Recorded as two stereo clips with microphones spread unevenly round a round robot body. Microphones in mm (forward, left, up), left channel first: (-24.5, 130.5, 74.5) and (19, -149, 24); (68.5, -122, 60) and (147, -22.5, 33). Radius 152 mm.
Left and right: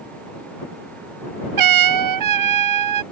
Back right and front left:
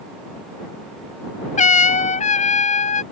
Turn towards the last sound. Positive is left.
turn(degrees=-105)